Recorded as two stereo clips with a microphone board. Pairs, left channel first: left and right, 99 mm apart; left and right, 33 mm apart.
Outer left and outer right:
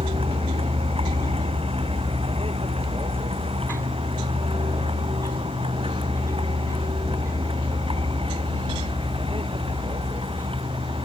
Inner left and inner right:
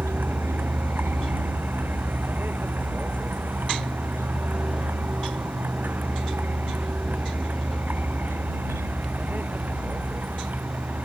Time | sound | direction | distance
0.0 | a vehicle | 80° right | ?